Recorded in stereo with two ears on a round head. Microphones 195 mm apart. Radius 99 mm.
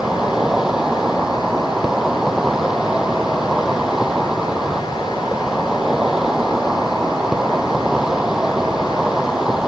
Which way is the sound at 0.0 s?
5° right (ahead or behind).